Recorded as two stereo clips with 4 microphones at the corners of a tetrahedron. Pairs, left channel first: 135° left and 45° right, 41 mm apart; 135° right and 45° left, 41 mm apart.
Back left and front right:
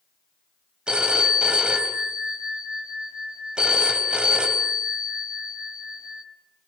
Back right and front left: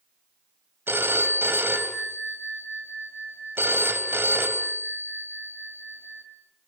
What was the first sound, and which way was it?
A phone ringing, 20° left.